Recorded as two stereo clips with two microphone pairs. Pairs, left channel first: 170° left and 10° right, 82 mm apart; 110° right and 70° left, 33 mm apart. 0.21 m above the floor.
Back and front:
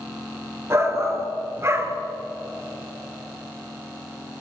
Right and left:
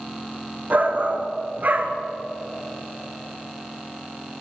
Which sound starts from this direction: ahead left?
A shout, at 0.7 s.